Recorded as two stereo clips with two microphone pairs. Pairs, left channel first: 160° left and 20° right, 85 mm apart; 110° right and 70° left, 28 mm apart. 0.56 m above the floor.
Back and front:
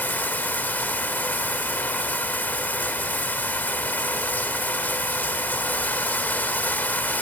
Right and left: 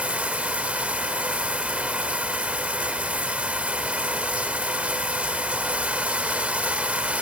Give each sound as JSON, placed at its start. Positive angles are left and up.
{"t": 0.0, "sound": "running water", "azimuth_deg": 95, "distance_m": 1.2}